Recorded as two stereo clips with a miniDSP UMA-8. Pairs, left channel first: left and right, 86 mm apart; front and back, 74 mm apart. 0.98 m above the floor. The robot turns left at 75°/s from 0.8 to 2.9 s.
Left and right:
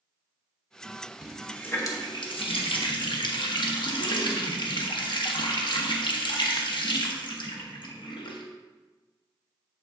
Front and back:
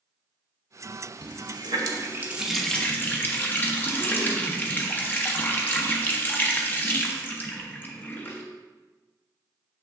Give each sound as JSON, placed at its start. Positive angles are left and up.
{"t": 1.2, "sound": "a running tap", "azimuth_deg": -170, "distance_m": 1.0}